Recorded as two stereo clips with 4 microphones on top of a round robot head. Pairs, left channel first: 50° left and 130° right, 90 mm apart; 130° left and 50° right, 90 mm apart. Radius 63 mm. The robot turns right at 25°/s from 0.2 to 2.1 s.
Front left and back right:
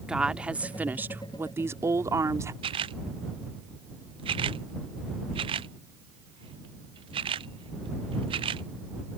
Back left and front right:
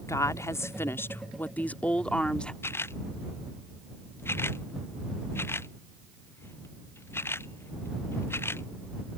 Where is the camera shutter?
160° right.